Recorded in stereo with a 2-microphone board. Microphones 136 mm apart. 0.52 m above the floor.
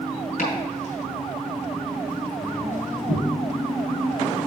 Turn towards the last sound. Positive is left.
turn(degrees=70)  # may be behind; listen again after turning